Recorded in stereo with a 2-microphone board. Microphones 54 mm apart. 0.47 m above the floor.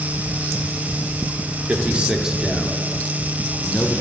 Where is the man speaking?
25° right (ahead or behind), 1.1 m; by 4.0 s 30° left (ahead or behind), 1.2 m.